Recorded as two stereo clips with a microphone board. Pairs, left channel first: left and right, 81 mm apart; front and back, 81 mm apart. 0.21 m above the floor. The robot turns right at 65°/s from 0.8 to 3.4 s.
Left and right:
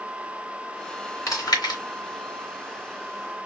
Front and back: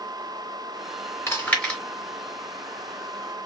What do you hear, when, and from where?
1.3 s chewing: 45° left, 2.5 m; by 1.8 s 80° left, 2.5 m